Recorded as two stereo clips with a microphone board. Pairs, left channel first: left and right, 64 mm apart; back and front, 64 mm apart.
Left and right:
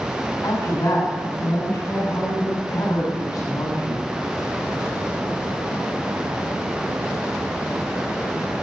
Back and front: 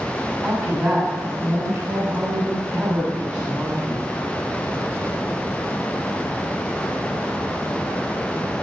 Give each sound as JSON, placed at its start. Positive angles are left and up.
{"t": 0.4, "sound": "a woman speaking", "azimuth_deg": 55, "distance_m": 7.0}